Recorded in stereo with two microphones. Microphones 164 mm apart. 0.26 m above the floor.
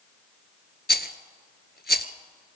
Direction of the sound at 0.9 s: 85° left.